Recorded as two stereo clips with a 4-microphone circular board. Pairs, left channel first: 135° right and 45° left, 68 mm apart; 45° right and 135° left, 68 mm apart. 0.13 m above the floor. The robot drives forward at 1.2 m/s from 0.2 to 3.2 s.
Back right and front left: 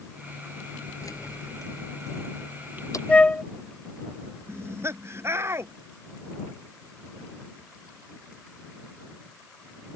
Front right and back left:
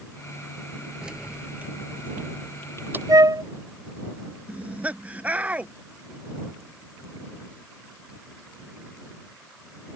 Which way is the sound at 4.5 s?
75° left.